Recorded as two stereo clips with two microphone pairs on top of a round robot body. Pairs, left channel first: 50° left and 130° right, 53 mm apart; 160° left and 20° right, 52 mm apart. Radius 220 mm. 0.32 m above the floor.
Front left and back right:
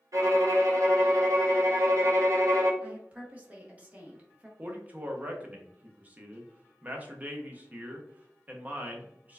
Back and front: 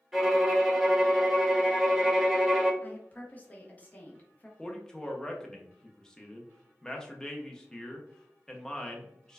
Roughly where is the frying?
I don't hear frying.